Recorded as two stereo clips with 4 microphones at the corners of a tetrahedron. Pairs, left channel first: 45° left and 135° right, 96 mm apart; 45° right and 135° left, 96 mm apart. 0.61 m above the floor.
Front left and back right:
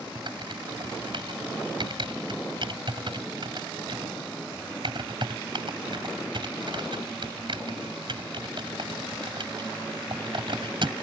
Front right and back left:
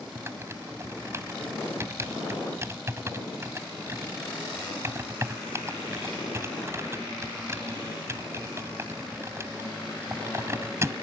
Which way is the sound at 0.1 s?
165° right.